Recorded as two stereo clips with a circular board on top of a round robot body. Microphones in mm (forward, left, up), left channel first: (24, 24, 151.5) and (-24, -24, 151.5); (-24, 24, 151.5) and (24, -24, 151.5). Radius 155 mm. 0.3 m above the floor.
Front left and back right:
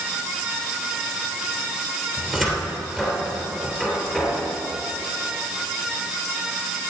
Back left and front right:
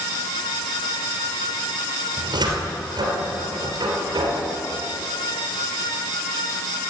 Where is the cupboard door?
40° right, 3 m.